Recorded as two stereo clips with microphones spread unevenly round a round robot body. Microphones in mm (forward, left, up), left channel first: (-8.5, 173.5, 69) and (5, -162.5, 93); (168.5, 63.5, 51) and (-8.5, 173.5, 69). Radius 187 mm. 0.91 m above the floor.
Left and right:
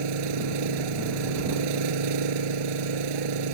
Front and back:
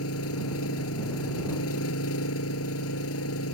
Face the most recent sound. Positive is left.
turn(degrees=-70)